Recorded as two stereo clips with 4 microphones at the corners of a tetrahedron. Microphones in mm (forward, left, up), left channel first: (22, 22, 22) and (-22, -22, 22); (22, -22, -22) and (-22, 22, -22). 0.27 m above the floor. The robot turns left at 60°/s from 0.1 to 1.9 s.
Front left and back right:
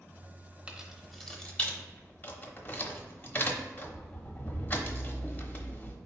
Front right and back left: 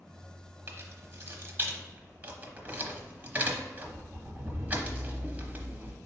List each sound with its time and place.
0.7 s keys jangling: 160° left, 0.8 m; by 6.0 s 90° left, 0.8 m